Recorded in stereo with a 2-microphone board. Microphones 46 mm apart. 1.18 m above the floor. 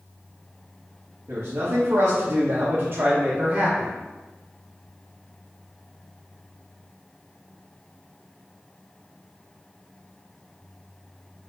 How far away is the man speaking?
About 1.1 m.